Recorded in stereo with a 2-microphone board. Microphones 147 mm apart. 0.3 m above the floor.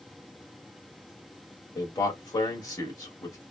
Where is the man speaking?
25° left (ahead or behind), 1.5 m.